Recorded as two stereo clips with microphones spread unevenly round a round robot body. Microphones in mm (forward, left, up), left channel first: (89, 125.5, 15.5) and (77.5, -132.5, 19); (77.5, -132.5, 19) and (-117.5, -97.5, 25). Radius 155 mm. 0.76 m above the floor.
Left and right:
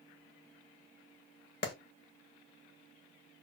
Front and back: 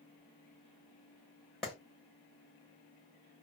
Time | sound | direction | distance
1.6 | a clap | 75° left | 0.8 m